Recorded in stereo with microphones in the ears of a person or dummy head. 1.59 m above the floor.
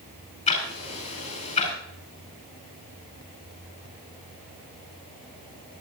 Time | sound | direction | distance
0.5 | ticking | 45° left (ahead or behind) | 5.5 m